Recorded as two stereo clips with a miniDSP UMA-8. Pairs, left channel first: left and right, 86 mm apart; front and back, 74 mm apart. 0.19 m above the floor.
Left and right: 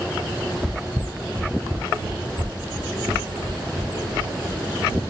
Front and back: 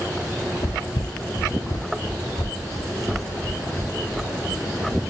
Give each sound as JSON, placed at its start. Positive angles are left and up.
{"t": 0.6, "sound": "footsteps", "azimuth_deg": -5, "distance_m": 1.0}